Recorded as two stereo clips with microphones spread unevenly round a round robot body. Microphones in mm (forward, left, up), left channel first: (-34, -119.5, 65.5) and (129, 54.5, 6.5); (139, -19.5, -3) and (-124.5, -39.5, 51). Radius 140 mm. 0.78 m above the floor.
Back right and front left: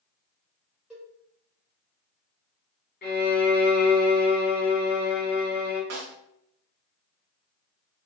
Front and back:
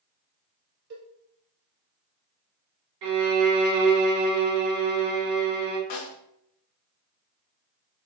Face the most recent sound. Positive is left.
turn(degrees=20)